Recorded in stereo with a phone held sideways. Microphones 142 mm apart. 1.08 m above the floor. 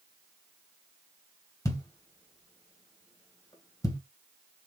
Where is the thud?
25° left (ahead or behind), 1.7 m.